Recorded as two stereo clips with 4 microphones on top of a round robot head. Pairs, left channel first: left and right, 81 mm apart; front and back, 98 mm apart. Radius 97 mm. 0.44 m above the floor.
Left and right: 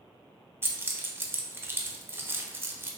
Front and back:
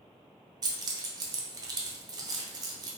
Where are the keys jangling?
145° right, 0.6 m.